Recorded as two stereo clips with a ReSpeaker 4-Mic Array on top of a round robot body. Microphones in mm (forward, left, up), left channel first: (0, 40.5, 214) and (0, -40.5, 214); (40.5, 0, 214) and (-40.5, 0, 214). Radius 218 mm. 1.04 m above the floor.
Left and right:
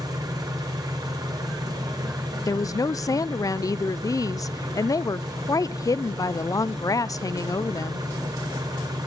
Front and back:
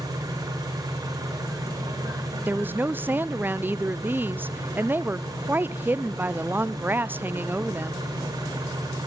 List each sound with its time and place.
0.0 s an engine running: 130° right, 1.1 m
2.5 s a woman speaking: 120° left, 0.5 m